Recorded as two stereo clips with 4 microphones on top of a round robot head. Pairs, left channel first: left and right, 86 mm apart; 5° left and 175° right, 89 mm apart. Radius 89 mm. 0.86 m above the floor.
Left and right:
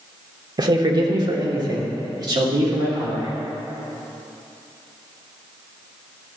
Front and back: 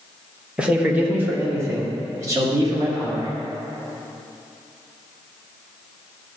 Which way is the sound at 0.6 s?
100° right.